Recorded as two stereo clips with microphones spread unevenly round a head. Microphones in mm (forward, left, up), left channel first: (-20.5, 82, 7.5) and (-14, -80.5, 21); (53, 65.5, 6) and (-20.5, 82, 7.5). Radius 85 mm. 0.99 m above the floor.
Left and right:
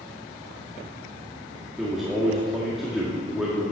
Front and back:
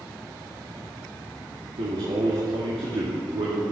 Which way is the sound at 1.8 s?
175° right.